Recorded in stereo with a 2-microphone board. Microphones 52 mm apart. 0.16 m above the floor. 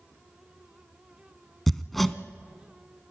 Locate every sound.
1.7 s hammering: 5° left (ahead or behind), 0.6 m